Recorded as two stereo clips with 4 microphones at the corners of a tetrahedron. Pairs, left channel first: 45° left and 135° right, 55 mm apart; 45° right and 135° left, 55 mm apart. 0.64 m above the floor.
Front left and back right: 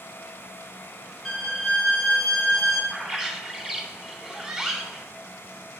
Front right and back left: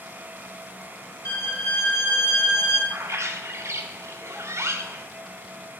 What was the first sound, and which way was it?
A violin, 40° right.